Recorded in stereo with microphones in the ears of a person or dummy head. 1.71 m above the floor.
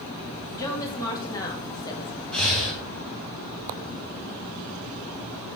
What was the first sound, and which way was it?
A woman speaking, 20° left (ahead or behind).